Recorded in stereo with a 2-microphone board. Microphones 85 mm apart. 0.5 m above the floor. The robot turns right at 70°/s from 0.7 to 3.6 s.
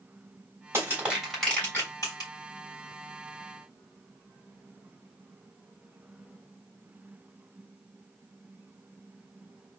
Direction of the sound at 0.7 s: 35° right (ahead or behind).